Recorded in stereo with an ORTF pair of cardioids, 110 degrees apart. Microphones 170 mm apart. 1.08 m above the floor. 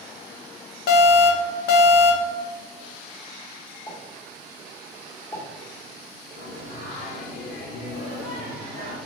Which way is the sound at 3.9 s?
25° left.